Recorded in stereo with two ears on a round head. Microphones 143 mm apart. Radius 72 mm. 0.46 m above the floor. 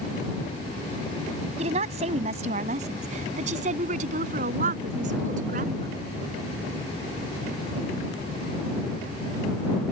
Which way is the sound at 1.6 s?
40° right (ahead or behind).